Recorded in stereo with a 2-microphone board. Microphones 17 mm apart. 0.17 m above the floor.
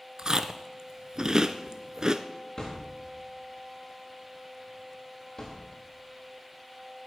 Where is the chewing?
40° right (ahead or behind), 0.9 m.